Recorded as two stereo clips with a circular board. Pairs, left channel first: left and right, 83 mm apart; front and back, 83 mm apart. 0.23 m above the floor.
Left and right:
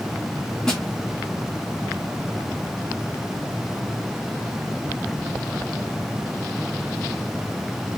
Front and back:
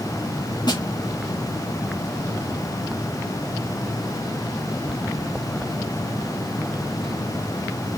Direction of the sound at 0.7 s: 10° left.